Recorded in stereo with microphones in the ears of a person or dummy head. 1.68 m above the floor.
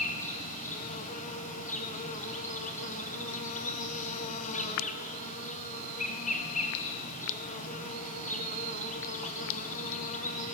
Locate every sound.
0.0 s an insect: 45° left (ahead or behind), 1.3 m